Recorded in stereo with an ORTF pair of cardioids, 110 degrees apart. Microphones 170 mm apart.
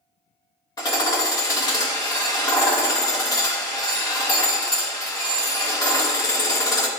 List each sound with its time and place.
0.8 s hammering: 25° left, 2.5 m